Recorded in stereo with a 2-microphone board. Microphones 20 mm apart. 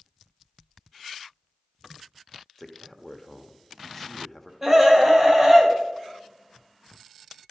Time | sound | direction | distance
2.6 | a man speaking | 5° left (ahead or behind) | 1.1 m
4.6 | a scream | 25° right (ahead or behind) | 2.5 m